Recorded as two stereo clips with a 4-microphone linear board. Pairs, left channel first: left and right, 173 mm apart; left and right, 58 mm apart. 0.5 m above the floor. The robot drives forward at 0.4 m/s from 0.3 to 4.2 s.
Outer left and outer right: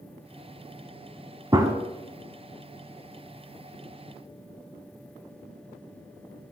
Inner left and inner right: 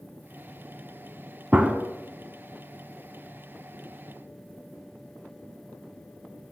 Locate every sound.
1.5 s a gunshot: 25° right (ahead or behind), 0.6 m; by 1.7 s 20° right (ahead or behind), 0.6 m